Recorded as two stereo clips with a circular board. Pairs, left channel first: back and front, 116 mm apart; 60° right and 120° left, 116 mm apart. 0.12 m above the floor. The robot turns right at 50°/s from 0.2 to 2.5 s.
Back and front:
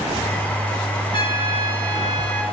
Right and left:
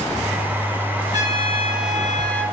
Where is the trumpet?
165° left, 1.2 m; by 2.4 s 130° right, 1.2 m.